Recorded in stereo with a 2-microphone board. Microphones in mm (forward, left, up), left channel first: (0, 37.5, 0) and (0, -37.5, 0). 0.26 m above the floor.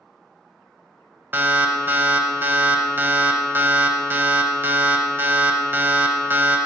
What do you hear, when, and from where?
1.3 s an alarm: 30° right (ahead or behind), 0.7 m